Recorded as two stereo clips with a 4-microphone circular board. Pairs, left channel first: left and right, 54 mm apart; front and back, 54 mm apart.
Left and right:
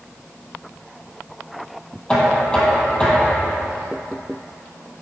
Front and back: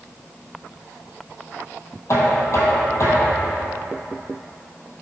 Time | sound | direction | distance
2.1 | knocking | 20° left | 1.9 m